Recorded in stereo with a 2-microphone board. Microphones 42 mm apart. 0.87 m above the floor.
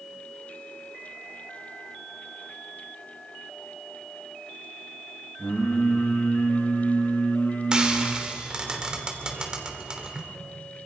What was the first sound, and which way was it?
Singing, 75° left (ahead or behind).